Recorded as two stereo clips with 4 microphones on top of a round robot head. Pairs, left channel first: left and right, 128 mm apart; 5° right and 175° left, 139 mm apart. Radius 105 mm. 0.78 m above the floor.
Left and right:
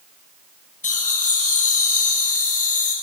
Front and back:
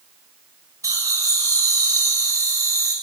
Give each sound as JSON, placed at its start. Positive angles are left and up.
{"t": 0.8, "sound": "laughter", "azimuth_deg": 105, "distance_m": 7.0}